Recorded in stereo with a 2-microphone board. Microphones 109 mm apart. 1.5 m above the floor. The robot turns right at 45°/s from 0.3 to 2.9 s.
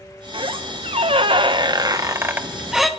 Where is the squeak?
115° right, 0.8 m; by 2.9 s straight ahead, 0.8 m.